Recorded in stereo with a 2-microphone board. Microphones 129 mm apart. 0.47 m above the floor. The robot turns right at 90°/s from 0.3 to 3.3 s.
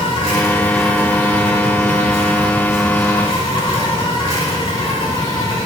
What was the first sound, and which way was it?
An insect, 135° left.